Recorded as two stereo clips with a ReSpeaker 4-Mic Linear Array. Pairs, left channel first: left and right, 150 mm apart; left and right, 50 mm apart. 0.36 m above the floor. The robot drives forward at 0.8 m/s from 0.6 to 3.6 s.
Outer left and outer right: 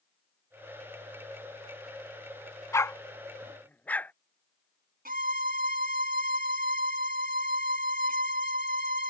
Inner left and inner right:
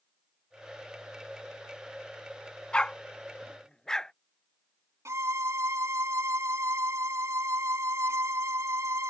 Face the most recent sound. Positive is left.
turn(degrees=-75)  # may be behind; listen again after turning